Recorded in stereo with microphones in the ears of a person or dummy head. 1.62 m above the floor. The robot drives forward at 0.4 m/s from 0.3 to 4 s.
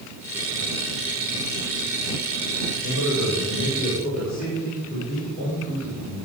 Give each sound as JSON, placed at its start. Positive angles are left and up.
{"t": 2.8, "sound": "a man speaking", "side_deg": -40, "distance_m": 7.5}